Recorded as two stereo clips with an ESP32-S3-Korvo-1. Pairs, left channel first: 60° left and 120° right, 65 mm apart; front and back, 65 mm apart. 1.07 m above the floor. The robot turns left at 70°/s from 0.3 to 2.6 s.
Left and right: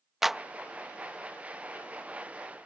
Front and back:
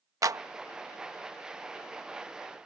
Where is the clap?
155° left; by 0.4 s 145° left.